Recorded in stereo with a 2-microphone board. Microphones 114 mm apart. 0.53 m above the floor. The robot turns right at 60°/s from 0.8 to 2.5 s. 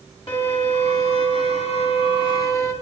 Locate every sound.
0.3 s a violin: 50° left, 1.9 m; by 2.7 s 150° left, 1.9 m